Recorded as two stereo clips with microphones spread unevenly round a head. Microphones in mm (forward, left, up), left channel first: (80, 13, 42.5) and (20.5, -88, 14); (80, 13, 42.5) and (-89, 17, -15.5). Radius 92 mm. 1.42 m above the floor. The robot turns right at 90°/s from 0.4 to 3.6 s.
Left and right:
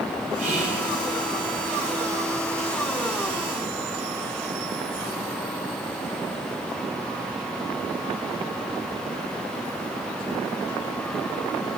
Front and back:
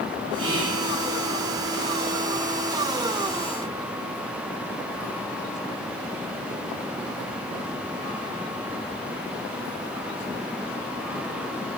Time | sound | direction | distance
0.4 | whispering | 165° right | 1.9 m